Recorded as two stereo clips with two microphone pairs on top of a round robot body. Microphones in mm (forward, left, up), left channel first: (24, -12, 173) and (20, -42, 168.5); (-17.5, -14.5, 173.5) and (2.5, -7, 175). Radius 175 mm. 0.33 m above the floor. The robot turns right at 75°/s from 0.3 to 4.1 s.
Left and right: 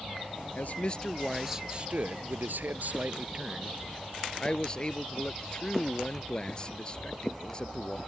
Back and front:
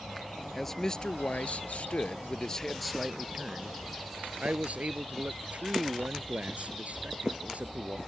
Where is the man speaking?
110° left; by 8.0 s 20° left.